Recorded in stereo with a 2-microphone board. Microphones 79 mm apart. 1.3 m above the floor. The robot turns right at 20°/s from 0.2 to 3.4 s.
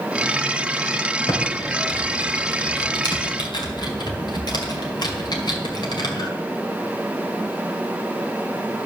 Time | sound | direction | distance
1.3 | typing on a keyboard | 55° left (ahead or behind) | 1.9 m